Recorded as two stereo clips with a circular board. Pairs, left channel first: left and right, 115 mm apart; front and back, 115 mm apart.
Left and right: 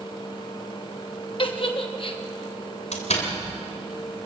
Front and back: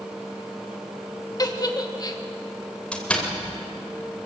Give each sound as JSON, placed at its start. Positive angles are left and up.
{"t": 1.4, "sound": "a giggle", "azimuth_deg": 55, "distance_m": 1.2}
{"t": 2.9, "sound": "a door slam", "azimuth_deg": 80, "distance_m": 3.0}